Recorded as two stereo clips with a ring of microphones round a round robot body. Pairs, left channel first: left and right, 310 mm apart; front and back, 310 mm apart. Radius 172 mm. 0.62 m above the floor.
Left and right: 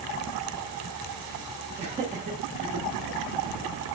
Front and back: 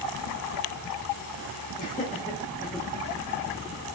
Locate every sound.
1.8 s laughter: 35° right, 1.1 m; by 2.9 s 85° right, 1.1 m